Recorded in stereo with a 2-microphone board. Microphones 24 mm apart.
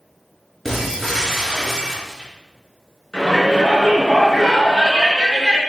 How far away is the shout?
About 4.5 m.